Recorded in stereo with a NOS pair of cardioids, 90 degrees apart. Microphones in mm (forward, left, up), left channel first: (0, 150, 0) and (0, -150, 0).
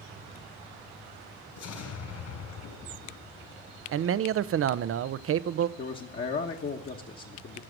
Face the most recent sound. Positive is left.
turn(degrees=40)